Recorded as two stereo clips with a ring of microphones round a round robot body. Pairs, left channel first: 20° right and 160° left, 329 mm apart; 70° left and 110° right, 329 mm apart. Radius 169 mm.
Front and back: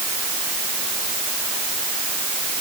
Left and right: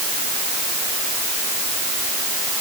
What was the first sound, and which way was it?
Only background noise.